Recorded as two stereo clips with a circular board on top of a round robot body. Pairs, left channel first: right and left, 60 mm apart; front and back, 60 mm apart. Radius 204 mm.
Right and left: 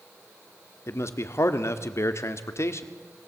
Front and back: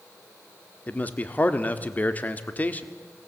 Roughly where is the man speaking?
Ahead right.